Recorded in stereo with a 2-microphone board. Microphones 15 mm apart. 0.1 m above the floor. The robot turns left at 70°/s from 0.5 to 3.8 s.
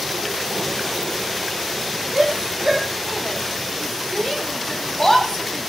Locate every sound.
2.1 s a shout: 60° right (ahead or behind), 4.5 m; by 5.7 s 45° left (ahead or behind), 4.5 m